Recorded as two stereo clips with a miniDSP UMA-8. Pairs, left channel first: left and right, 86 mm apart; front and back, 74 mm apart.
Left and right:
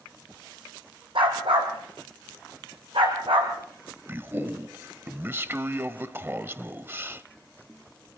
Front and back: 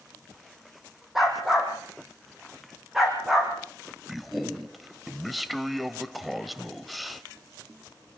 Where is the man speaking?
90° right, 1.0 m.